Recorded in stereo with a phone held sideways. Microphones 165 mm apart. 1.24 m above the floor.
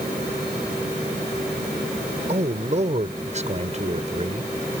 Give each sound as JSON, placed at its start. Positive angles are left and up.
{"t": 2.3, "sound": "a man speaking", "side_deg": -45}